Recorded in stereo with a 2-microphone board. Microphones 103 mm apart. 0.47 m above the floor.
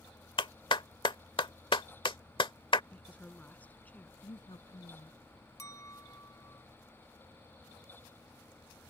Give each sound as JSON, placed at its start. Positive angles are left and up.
{"t": 0.4, "sound": "a clap", "side_deg": 60}
{"t": 2.9, "sound": "a woman speaking", "side_deg": 15}
{"t": 4.2, "sound": "a woman speaking", "side_deg": 60}
{"t": 5.6, "sound": "a clink", "side_deg": 35}